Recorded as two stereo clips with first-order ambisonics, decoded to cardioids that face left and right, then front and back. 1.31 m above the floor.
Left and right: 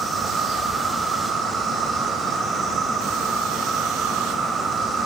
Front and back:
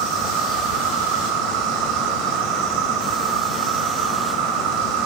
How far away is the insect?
About 3.5 m.